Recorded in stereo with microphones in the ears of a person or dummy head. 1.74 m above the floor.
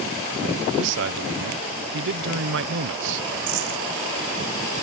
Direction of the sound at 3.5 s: 80° right.